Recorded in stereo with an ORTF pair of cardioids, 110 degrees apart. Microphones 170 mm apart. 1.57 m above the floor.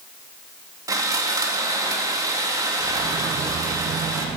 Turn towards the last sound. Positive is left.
turn(degrees=-20)